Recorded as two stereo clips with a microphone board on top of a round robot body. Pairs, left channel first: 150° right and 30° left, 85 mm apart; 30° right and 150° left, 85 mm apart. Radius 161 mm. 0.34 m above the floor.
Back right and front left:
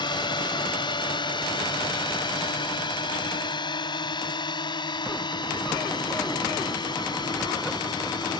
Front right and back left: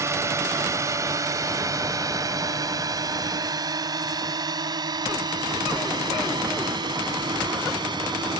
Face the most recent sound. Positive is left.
turn(degrees=180)